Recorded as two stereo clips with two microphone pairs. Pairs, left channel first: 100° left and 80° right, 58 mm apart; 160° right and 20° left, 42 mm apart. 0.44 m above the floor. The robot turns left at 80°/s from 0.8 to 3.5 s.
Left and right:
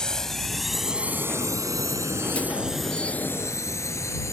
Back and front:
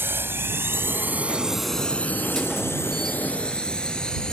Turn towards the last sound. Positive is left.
turn(degrees=130)